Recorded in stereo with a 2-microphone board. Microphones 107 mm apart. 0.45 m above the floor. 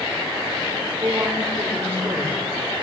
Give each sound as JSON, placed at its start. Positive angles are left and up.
{"t": 0.9, "sound": "a woman speaking", "side_deg": -25, "distance_m": 1.6}